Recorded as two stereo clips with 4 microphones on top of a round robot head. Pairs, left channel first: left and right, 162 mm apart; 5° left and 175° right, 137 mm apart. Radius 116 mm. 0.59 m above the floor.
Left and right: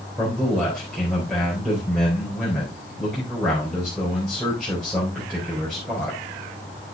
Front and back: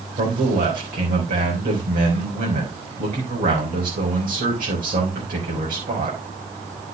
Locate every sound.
0.2 s a man speaking: straight behind, 4 m